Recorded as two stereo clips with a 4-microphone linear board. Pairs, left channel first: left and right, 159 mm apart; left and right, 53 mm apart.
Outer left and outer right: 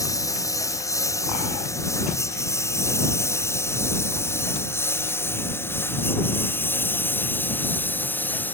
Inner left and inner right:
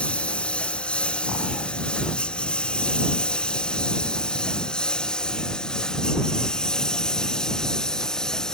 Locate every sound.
0.0 s a lawn mower: 20° left (ahead or behind); by 8.6 s 10° left (ahead or behind)